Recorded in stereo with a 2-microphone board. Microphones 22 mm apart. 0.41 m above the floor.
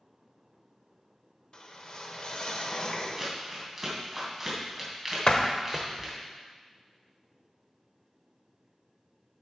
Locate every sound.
1.5 s a whoosh: 45° left (ahead or behind), 1.1 m
3.2 s crumpling: 5° right (ahead or behind), 3 m
5.3 s a door slam: 45° left (ahead or behind), 1.0 m